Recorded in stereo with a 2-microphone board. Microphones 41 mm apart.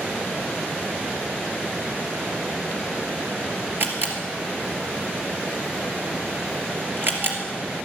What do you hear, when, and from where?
3.8 s a camera shutter: 50° right (ahead or behind), 2.5 m